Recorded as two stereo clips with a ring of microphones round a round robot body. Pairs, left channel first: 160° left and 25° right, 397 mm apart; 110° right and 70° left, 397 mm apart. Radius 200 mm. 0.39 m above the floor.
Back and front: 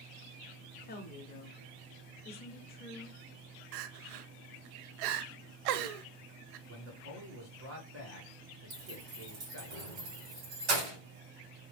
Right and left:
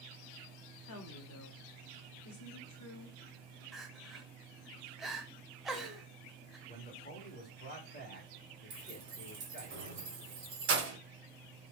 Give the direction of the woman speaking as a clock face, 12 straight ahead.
5 o'clock.